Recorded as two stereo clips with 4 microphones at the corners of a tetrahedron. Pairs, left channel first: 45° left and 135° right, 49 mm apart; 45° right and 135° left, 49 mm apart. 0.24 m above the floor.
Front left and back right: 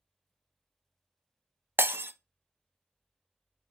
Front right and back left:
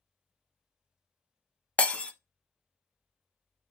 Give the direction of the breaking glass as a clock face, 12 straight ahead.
4 o'clock.